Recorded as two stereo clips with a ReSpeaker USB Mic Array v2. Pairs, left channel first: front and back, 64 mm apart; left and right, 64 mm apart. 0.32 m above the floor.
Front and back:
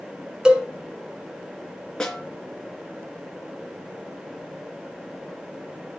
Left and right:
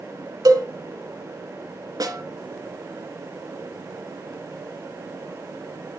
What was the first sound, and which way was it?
A cowbell, 105° right.